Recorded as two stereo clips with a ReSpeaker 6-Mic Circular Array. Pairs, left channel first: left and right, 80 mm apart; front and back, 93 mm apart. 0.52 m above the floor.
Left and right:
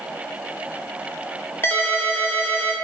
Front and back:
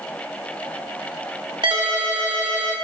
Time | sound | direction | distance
1.6 | a ringtone | 150° left | 0.7 m